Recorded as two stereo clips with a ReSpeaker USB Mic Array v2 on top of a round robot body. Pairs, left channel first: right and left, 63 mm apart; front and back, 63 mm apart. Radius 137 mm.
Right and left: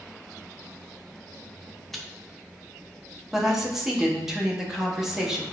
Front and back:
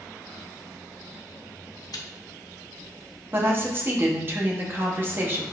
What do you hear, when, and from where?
1.9 s chewing: straight ahead, 0.7 m
3.3 s a woman speaking: 170° left, 1.2 m